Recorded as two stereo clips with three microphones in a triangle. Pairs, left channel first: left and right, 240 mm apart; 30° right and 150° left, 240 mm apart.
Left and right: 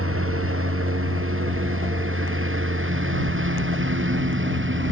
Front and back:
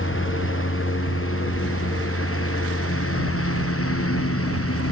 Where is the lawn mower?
65° right; by 4.9 s 55° right.